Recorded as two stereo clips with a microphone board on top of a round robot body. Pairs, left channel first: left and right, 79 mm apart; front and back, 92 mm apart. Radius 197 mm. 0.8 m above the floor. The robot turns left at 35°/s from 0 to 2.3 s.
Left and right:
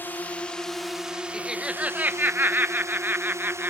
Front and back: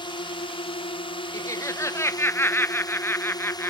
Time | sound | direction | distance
0.0 | a drone | 25° left | ?
1.3 | laughter | 10° right | ?